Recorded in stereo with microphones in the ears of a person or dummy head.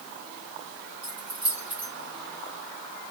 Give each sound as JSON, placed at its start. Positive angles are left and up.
{"t": 1.0, "sound": "keys jangling", "side_deg": -15, "distance_m": 1.0}